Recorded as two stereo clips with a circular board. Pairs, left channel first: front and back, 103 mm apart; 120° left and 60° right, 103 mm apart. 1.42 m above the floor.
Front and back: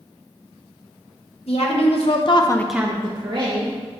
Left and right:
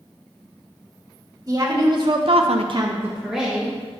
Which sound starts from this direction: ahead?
A woman speaking, at 1.5 s.